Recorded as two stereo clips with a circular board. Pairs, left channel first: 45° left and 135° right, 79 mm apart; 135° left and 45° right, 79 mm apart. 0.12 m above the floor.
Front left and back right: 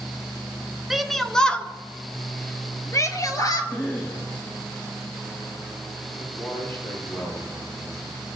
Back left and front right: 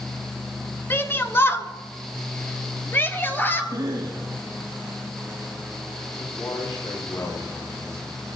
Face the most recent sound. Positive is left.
turn(degrees=95)